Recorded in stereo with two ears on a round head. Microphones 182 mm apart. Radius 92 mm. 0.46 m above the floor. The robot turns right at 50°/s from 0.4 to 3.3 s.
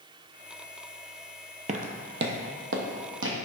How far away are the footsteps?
About 0.6 m.